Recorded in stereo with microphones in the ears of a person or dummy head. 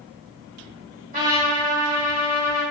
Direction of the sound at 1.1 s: 40° right (ahead or behind).